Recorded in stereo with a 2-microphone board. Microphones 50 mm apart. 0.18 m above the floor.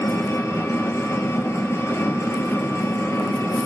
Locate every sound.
0.0 s an engine running: 70° left (ahead or behind), 1.0 m